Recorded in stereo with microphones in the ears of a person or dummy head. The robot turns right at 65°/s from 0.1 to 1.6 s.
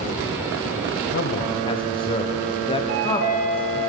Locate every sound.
1.1 s a man speaking: 125° left, 0.8 m; by 3.9 s 155° left, 0.8 m
2.9 s a chime: 70° right (ahead or behind), 3 m